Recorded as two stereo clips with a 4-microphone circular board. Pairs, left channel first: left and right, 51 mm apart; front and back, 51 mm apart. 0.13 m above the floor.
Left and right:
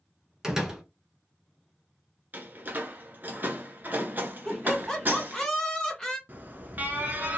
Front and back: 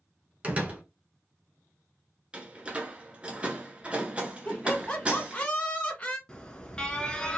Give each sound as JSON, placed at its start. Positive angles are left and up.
{"t": 0.4, "sound": "a door slam", "azimuth_deg": -160, "distance_m": 1.1}
{"t": 2.3, "sound": "a door slam", "azimuth_deg": -120, "distance_m": 1.1}
{"t": 4.5, "sound": "laughter", "azimuth_deg": 30, "distance_m": 1.5}
{"t": 6.3, "sound": "an alarm", "azimuth_deg": -65, "distance_m": 1.0}